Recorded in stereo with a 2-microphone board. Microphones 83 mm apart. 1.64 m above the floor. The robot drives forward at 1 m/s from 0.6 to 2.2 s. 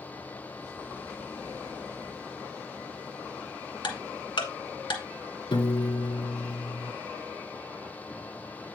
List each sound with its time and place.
3.8 s ticking: 70° left (ahead or behind), 1.7 m
5.5 s a piano: 75° left (ahead or behind), 1.4 m